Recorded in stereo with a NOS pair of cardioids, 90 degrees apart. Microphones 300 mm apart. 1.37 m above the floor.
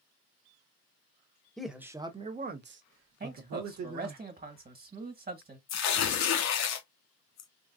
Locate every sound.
1.6 s a man speaking: straight ahead, 0.9 m; by 4.2 s 75° right, 1.3 m
3.2 s a man speaking: 30° right, 1.6 m
5.7 s tearing paper: 65° left, 0.9 m